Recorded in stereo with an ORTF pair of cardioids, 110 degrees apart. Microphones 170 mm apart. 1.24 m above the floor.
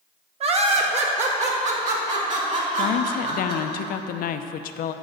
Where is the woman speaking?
60° left, 0.6 m.